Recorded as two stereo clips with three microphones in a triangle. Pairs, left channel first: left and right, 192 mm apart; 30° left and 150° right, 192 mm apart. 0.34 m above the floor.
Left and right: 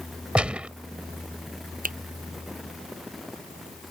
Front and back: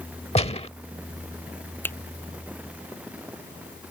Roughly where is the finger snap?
Ahead right.